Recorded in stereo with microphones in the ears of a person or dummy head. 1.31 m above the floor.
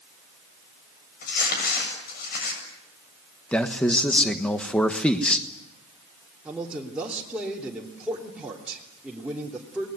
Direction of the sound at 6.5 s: 5° right (ahead or behind).